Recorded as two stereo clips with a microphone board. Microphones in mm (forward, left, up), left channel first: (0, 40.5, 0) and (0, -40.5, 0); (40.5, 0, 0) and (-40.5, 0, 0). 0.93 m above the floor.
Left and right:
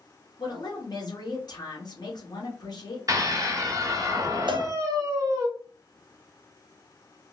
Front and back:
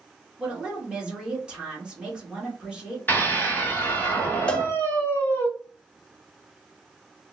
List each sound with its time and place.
0.4 s a woman speaking: 105° left, 1.5 m
3.1 s a scream: 55° right, 1.4 m
4.5 s a cowbell: 75° right, 0.6 m